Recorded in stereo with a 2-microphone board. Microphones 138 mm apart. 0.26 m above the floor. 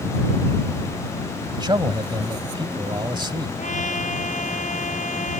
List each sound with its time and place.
1.5 s a man speaking: 35° right (ahead or behind)
3.6 s a trumpet: 65° left (ahead or behind)